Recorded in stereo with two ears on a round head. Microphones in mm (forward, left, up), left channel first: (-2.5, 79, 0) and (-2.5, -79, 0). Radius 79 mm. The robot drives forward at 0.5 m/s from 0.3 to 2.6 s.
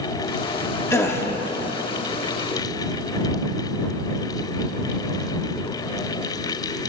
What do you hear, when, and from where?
0.9 s a gasp: 15° left (ahead or behind), 0.9 m